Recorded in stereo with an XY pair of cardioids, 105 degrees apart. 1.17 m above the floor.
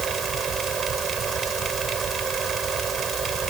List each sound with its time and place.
0.0 s a fan: 45° right